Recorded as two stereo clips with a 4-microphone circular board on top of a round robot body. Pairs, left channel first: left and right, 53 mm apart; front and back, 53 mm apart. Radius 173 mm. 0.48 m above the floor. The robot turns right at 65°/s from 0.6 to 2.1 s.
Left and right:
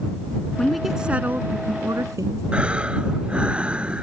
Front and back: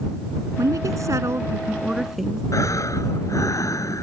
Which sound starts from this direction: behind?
A woman speaking, at 0.6 s.